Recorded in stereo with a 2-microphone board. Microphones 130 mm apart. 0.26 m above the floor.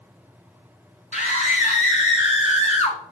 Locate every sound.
1.1 s a scream: 70° left (ahead or behind), 3 m; by 3.0 s 55° left (ahead or behind), 2.0 m